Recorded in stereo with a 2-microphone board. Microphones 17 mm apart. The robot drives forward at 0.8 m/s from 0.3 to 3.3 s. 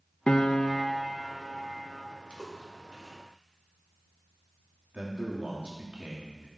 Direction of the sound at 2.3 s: 65° left (ahead or behind).